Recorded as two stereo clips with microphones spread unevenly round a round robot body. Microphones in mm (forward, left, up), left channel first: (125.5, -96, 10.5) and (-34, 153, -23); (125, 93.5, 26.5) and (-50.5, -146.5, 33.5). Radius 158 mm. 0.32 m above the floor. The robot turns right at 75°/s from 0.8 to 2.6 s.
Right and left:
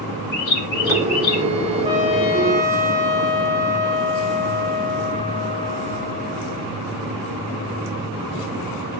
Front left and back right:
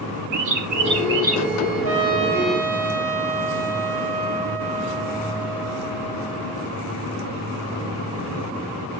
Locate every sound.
0.3 s a bird: 100° right, 3.5 m; by 1.4 s 55° right, 3.5 m
1.8 s a trumpet: 85° right, 6.5 m; by 6.7 s 30° right, 6.5 m